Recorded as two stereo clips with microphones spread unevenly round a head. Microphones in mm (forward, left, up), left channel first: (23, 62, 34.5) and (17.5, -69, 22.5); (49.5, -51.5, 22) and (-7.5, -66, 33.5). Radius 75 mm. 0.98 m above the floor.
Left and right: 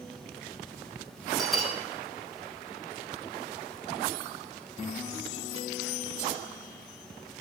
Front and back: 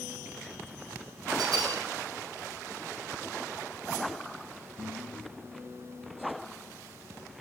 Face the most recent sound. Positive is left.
turn(degrees=180)